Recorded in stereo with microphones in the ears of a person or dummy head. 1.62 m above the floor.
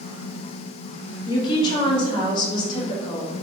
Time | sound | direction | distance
1.3 | a woman speaking | 30° left (ahead or behind) | 1.2 m